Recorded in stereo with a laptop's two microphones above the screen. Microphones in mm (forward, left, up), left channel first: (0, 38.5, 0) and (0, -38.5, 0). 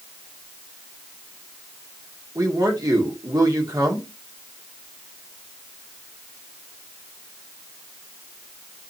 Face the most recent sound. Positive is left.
turn(degrees=-50)  # may be behind; listen again after turning